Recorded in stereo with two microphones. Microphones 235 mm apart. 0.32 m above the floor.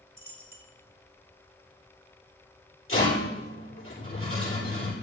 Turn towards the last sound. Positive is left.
turn(degrees=60)  # may be behind; listen again after turning